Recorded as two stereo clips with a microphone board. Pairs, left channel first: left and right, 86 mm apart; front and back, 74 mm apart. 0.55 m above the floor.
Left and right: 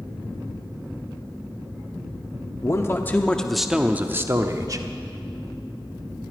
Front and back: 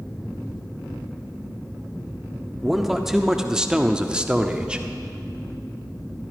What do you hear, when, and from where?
2.6 s a man speaking: 95° left, 0.8 m; by 4.8 s 110° right, 0.9 m